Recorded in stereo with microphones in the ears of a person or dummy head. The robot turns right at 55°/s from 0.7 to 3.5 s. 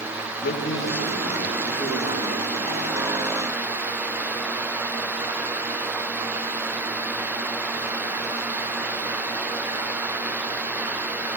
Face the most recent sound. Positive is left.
turn(degrees=-85)